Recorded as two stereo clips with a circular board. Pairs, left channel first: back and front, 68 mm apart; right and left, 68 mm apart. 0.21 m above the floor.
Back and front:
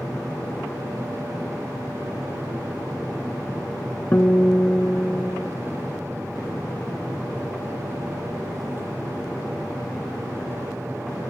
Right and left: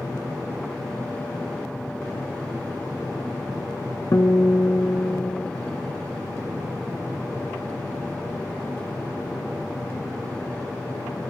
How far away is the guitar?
About 0.6 m.